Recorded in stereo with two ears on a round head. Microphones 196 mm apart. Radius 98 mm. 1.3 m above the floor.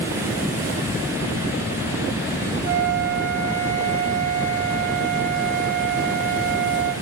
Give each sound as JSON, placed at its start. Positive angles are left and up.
{"t": 2.6, "sound": "a flute", "side_deg": -60, "distance_m": 1.8}